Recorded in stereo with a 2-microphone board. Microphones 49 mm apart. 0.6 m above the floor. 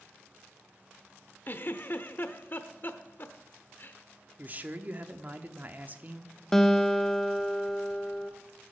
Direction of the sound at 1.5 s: 45° left (ahead or behind).